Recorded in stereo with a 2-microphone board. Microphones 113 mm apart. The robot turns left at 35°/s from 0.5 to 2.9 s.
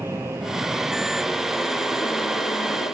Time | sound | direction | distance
0.0 | an aircraft | 160° right | ?